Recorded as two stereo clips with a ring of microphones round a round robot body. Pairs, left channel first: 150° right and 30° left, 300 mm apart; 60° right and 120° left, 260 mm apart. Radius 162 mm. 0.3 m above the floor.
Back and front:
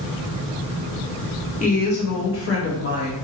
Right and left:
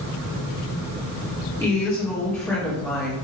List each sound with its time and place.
1.6 s a woman speaking: 125° right, 1.2 m; by 3.1 s 145° right, 1.9 m